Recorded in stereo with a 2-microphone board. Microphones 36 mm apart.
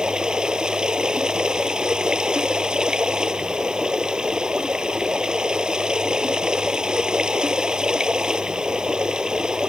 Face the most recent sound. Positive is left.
turn(degrees=-20)  # may be behind; listen again after turning